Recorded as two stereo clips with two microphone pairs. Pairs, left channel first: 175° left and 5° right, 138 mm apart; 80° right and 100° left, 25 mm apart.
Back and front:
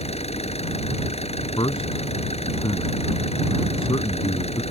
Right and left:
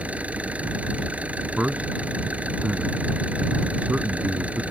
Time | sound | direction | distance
0.0 | an engine running | 130° left | ?
1.6 | a man speaking | 120° left | ?